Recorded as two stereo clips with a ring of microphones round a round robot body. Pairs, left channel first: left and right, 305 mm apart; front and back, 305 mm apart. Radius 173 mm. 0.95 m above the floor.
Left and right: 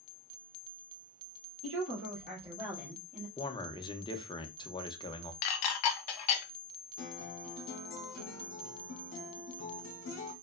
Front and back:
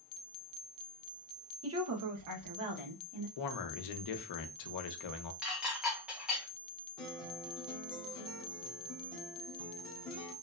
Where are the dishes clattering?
90° left, 0.5 m.